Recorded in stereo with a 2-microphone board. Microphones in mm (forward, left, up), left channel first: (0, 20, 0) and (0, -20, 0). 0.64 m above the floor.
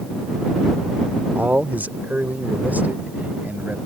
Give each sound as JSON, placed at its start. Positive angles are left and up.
{"t": 1.4, "sound": "a man speaking", "side_deg": -45}